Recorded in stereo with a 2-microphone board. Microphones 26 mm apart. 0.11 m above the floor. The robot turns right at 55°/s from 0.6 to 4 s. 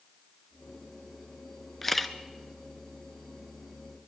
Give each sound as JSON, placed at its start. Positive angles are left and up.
{"t": 1.8, "sound": "a camera shutter", "side_deg": 10, "distance_m": 0.7}